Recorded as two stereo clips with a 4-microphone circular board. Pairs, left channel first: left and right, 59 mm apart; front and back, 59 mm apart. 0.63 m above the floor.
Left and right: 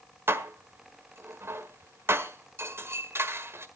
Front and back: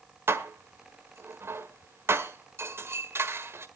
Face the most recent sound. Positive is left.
turn(degrees=-135)